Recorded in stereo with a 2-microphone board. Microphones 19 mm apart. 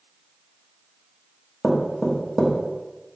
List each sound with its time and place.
1.6 s knocking: 5° left (ahead or behind), 1.1 m